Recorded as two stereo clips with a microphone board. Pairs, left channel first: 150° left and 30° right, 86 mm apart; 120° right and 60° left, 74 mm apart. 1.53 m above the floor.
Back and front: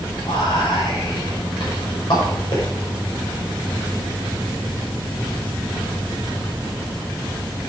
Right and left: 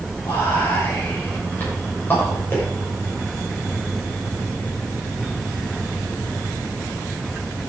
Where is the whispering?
175° left, 6.5 m.